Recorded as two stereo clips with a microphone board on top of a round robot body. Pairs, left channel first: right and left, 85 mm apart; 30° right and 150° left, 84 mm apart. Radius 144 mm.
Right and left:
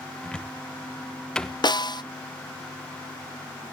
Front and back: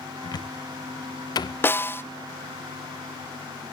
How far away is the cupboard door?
About 1.2 m.